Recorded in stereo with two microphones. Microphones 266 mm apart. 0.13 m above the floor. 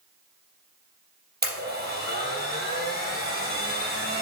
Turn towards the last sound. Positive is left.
turn(degrees=-40)  # may be behind; listen again after turning